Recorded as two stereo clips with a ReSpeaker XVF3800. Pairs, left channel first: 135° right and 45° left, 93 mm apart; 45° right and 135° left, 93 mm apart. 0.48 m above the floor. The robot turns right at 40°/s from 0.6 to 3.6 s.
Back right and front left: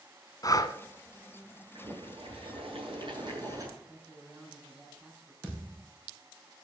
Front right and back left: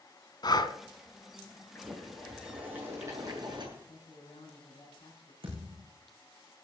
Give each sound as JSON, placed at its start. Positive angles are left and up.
{"t": 0.4, "sound": "breathing", "azimuth_deg": -85, "distance_m": 1.0}
{"t": 1.8, "sound": "boiling", "azimuth_deg": 25, "distance_m": 7.0}
{"t": 3.8, "sound": "a man speaking", "azimuth_deg": -35, "distance_m": 5.5}
{"t": 5.4, "sound": "a thud", "azimuth_deg": 115, "distance_m": 7.0}